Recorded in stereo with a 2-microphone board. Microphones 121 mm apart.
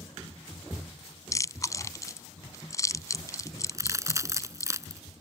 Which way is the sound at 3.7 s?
25° right (ahead or behind).